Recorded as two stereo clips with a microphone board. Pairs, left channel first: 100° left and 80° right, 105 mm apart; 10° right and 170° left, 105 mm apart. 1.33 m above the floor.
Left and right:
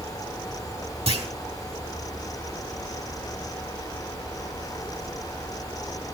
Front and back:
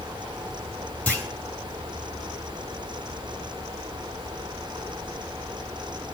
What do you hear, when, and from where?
1.1 s a clunk: 85° right, 3.5 m